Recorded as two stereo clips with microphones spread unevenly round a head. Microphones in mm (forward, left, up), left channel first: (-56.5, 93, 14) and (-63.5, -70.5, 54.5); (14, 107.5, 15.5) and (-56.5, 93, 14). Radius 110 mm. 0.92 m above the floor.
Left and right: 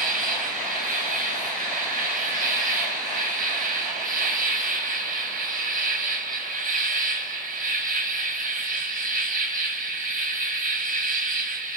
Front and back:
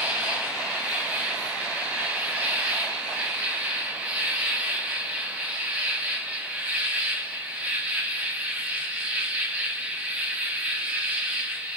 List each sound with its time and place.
0.0 s an insect: 95° right, 1.2 m